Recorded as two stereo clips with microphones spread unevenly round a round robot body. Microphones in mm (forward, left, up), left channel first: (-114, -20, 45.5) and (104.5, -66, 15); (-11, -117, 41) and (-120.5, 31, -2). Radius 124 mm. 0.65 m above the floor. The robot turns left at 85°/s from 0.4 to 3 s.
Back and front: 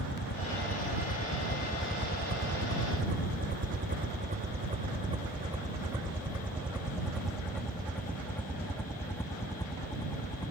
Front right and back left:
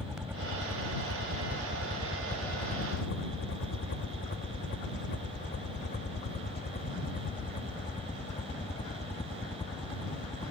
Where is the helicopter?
150° right; by 10.5 s 120° right.